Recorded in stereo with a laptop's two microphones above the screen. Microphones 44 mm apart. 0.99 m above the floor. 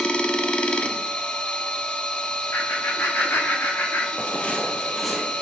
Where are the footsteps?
40° left (ahead or behind), 1.3 m; by 5.3 s 10° right (ahead or behind), 1.5 m.